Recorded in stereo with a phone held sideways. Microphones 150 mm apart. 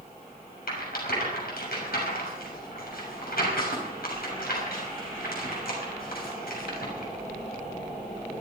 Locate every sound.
0.7 s a rattle: 80° left, 6 m